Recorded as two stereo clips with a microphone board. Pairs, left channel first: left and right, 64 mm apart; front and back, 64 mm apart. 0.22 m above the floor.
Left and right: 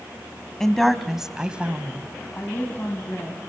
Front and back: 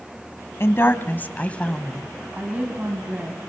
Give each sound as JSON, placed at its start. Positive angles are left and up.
{"t": 0.6, "sound": "a woman speaking", "azimuth_deg": 10, "distance_m": 1.4}
{"t": 2.4, "sound": "a woman speaking", "azimuth_deg": 130, "distance_m": 1.9}